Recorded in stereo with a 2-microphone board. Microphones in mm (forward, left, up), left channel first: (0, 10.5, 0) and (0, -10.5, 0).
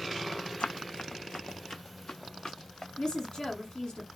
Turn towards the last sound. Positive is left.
turn(degrees=40)  # may be behind; listen again after turning